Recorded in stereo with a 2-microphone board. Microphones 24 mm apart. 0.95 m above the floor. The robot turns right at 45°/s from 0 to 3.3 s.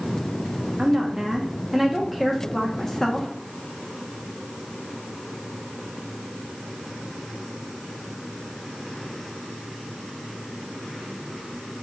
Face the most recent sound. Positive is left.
turn(degrees=55)